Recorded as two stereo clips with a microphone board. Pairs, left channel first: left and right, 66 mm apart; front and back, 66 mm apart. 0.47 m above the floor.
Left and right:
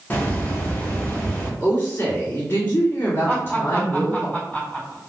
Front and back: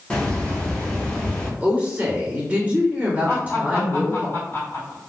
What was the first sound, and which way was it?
A hiss, 60° left.